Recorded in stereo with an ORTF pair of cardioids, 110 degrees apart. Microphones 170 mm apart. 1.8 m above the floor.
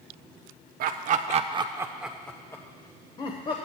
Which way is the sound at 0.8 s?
70° right.